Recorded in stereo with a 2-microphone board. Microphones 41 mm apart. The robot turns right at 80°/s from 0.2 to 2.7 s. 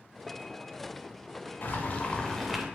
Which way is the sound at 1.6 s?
105° left.